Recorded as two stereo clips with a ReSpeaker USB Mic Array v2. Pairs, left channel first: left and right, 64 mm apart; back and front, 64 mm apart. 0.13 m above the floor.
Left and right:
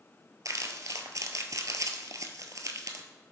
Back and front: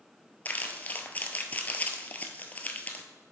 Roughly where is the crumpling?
Behind right.